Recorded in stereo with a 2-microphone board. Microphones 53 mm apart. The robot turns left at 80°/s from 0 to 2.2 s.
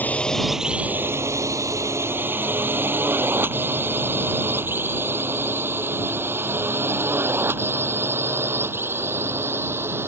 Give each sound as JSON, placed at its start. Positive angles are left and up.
{"t": 0.0, "sound": "a drone", "side_deg": 35}